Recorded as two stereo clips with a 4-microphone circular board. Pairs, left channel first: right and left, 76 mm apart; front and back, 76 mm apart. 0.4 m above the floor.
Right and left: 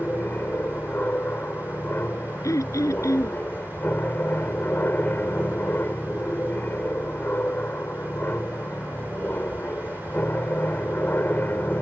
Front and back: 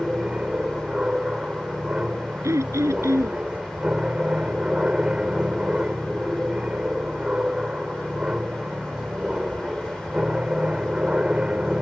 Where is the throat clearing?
135° right.